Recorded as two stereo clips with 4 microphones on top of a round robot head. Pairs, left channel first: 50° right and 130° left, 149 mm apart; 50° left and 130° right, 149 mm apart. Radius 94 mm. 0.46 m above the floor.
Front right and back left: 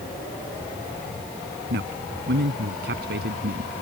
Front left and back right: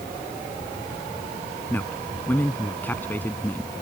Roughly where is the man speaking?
Behind left.